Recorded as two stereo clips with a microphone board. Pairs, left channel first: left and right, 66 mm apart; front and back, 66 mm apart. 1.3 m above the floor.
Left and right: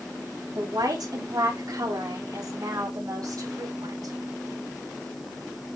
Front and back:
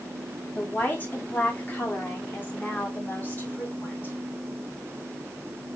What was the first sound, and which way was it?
A woman speaking, 65° right.